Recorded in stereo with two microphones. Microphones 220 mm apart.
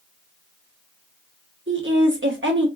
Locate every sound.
1.7 s a woman speaking: 60° right (ahead or behind), 1.1 m